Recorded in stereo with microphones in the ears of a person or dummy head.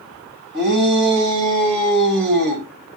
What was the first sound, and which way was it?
A shout, 65° right (ahead or behind).